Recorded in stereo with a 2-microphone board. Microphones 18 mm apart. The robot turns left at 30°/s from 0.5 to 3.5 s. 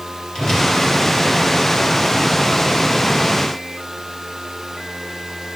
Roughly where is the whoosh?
Left.